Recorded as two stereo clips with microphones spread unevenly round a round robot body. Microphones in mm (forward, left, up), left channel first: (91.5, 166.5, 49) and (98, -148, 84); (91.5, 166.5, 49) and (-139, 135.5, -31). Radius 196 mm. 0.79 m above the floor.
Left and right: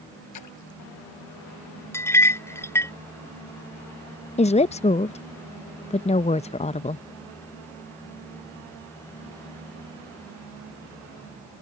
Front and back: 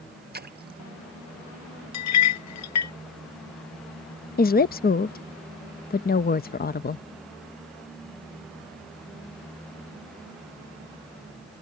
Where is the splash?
135° left.